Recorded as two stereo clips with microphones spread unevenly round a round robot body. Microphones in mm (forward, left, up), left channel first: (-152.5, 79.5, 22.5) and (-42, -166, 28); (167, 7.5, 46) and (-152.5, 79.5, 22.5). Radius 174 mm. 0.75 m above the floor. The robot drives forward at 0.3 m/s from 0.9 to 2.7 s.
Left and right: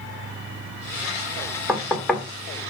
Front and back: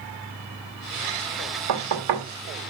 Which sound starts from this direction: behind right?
Knocking, at 1.7 s.